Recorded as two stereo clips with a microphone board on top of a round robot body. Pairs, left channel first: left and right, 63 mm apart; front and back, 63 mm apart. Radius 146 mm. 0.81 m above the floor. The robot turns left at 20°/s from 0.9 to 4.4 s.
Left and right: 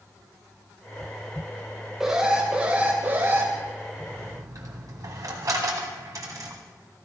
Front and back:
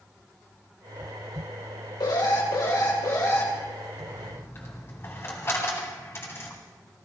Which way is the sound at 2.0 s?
10° right.